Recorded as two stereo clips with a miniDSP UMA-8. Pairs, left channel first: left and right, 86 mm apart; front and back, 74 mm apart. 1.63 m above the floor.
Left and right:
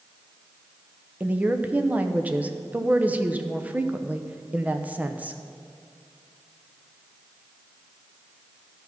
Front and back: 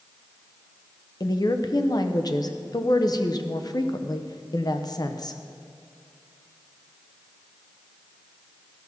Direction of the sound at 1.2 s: 20° right.